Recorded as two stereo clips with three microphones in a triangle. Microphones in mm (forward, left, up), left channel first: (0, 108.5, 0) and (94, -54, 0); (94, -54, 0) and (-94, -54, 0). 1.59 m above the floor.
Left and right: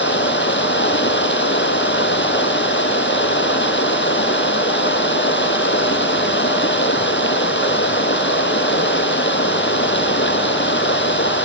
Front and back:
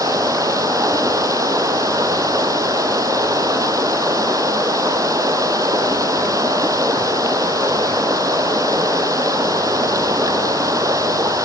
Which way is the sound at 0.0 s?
105° left.